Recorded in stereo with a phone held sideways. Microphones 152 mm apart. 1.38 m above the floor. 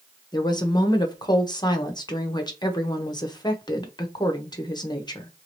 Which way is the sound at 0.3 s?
25° left (ahead or behind).